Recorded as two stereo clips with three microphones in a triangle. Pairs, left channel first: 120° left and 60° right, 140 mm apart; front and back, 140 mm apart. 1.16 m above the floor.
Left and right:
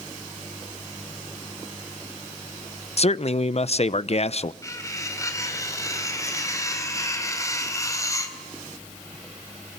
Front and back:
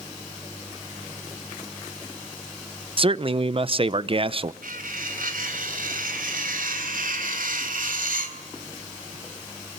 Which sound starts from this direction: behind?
Cutlery clinking, at 4.6 s.